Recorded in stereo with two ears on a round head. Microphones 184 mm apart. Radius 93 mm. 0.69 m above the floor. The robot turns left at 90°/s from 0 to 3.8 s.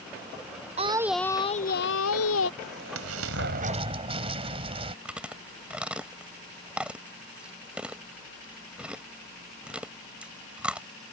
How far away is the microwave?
No microwave in this recording.